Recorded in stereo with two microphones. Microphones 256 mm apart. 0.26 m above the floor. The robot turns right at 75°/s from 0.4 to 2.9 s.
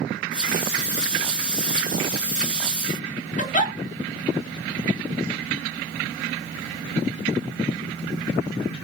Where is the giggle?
30° left (ahead or behind), 0.5 m.